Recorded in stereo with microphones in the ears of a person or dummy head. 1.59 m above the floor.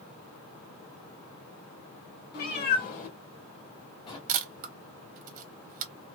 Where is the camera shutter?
45° right (ahead or behind), 0.8 m.